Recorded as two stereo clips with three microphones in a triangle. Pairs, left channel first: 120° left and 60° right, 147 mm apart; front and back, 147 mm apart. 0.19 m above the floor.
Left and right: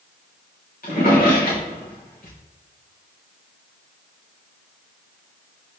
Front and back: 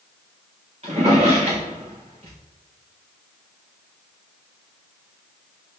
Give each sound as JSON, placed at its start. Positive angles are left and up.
{"t": 0.8, "sound": "a drawer", "azimuth_deg": 135, "distance_m": 3.5}